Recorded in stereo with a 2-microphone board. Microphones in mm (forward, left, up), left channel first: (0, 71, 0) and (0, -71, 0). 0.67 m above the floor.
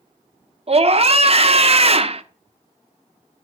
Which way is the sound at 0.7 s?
45° right (ahead or behind).